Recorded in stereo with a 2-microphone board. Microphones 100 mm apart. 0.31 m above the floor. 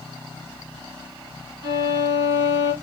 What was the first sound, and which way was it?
A violin, 55° right (ahead or behind).